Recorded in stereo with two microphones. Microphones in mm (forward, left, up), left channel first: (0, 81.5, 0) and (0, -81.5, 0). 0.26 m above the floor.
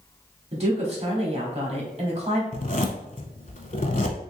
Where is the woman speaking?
40° right (ahead or behind), 1.2 m.